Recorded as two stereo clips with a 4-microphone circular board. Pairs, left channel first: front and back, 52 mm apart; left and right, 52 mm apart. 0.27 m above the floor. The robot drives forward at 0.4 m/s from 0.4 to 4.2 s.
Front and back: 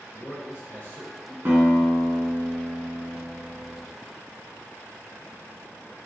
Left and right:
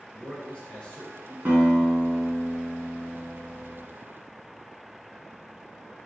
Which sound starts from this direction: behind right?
A guitar, at 1.4 s.